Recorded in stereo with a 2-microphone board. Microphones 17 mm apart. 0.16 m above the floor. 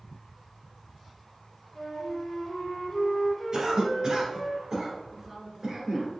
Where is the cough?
45° right (ahead or behind), 1.8 m.